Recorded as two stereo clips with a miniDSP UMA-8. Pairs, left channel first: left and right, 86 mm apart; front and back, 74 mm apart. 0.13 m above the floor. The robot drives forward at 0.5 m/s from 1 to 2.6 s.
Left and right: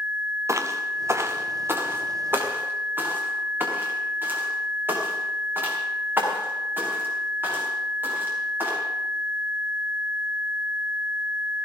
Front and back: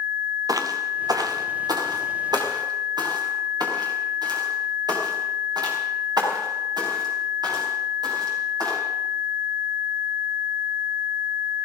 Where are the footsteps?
145° right, 1.7 m; by 8.8 s 155° right, 7.5 m.